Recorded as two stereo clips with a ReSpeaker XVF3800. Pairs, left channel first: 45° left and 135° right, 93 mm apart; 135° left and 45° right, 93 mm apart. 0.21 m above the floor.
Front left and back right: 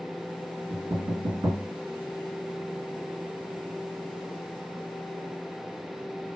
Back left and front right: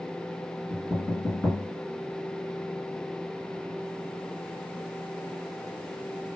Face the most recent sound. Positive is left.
turn(degrees=-145)